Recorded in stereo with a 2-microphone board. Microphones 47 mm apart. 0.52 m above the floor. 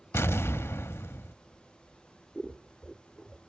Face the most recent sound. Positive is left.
turn(degrees=10)  # may be behind; listen again after turning